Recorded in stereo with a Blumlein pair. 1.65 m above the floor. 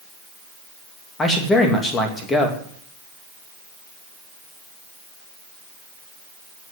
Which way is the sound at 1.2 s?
15° left.